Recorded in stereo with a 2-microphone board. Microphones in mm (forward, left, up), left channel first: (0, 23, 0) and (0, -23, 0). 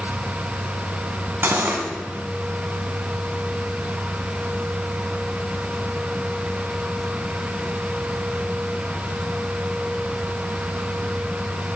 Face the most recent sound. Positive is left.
turn(degrees=-50)  # may be behind; listen again after turning